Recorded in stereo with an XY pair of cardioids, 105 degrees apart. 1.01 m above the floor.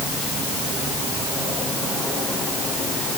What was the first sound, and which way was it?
Only background noise.